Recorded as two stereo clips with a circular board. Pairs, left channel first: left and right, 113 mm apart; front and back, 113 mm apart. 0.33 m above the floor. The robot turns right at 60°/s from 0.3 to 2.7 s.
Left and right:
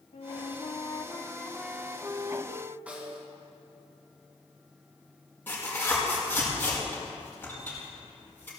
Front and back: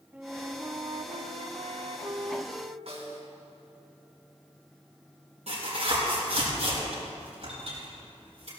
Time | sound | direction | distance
0.1 | a flute | 105° left | 0.7 m
2.9 | a snare drum | 165° right | 2.5 m
5.5 | tearing paper | 165° left | 5.5 m